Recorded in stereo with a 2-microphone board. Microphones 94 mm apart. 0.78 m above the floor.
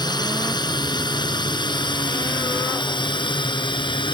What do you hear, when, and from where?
0.0 s a drone: 50° left (ahead or behind); by 4.1 s 55° left (ahead or behind)